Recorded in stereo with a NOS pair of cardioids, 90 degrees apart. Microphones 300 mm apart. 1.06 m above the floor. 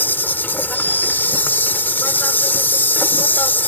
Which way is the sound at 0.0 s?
5° left.